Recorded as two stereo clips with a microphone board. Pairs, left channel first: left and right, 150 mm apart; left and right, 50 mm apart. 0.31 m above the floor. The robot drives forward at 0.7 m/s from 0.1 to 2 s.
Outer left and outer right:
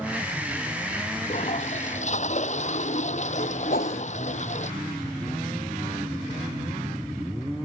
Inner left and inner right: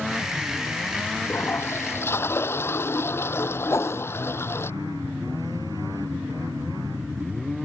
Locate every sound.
1.2 s a toilet flushing: 50° left (ahead or behind)
3.7 s a whoosh: 85° left